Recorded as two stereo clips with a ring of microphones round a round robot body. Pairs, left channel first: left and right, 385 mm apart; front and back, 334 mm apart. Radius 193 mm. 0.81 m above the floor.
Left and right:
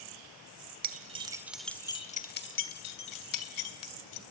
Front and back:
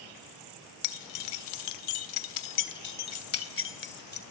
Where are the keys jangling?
20° right, 1.7 m; by 4.2 s 60° left, 2.5 m.